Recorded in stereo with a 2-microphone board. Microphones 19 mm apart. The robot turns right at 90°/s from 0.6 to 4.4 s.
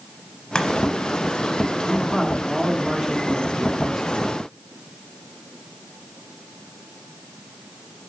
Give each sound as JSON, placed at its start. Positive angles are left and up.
{"t": 0.6, "sound": "chopping", "side_deg": 35, "distance_m": 1.0}
{"t": 1.9, "sound": "a man speaking", "azimuth_deg": 140, "distance_m": 1.1}